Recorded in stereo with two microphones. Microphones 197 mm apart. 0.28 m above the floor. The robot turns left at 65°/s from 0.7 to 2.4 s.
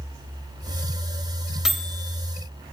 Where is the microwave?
5° right (ahead or behind), 0.8 m; by 2.1 s 10° left (ahead or behind), 0.8 m.